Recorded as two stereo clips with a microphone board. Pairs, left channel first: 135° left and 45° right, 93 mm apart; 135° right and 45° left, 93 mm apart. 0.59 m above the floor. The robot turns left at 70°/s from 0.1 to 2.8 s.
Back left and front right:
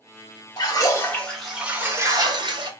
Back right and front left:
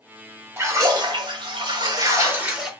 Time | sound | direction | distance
0.6 | a splash | 105° left | 1.0 m